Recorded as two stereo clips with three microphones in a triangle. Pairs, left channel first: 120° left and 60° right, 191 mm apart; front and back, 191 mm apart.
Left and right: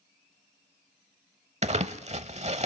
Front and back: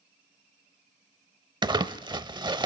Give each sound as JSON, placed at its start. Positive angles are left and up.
{"t": 1.6, "sound": "crumpling", "azimuth_deg": -110, "distance_m": 0.7}